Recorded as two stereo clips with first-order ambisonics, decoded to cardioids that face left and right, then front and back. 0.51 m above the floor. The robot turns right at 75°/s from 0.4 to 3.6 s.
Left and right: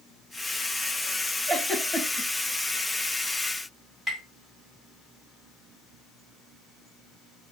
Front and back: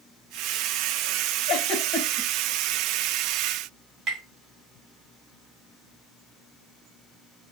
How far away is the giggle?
About 2 m.